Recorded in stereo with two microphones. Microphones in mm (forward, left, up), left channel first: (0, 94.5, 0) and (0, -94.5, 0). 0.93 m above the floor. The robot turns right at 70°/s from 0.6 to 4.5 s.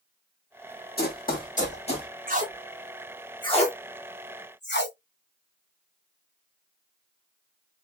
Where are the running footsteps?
55° left (ahead or behind), 1.7 m; by 2.1 s 25° left (ahead or behind), 1.7 m.